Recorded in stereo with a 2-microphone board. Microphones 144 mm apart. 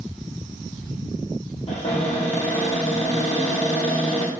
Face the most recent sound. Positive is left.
turn(degrees=50)  # may be behind; listen again after turning